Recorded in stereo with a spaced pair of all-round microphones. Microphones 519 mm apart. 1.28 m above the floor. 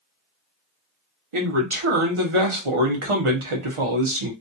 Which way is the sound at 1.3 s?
70° right (ahead or behind).